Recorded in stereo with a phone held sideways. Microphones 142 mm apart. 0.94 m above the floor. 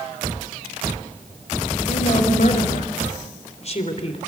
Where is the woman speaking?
60° left (ahead or behind), 5 m; by 4.2 s 45° left (ahead or behind), 3.5 m.